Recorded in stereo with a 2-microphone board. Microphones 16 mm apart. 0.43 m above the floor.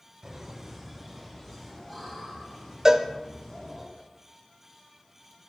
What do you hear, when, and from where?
0.2 s laughter: 15° right (ahead or behind), 1.9 m; by 3.9 s 40° left (ahead or behind), 6 m
2.9 s a cowbell: 30° right (ahead or behind), 0.9 m